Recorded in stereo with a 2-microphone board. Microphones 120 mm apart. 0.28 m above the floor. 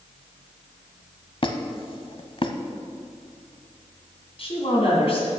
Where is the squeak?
45° left (ahead or behind), 0.7 m.